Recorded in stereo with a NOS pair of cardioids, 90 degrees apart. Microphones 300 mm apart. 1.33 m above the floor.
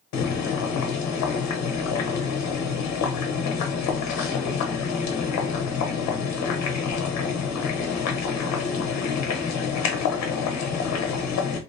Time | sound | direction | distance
0.1 | boiling | 65° left | 0.8 m